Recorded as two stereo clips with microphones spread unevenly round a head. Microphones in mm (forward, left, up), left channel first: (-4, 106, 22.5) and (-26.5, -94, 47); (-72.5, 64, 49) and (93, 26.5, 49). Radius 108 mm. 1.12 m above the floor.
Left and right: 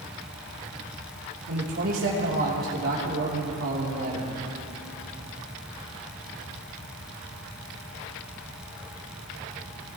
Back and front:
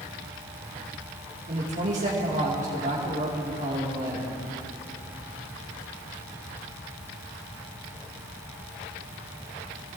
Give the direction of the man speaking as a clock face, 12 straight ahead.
2 o'clock.